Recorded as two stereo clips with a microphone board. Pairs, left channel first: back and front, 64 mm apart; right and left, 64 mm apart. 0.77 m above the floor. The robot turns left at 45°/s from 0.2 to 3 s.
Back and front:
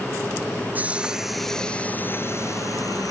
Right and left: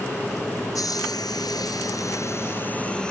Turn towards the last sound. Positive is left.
turn(degrees=-165)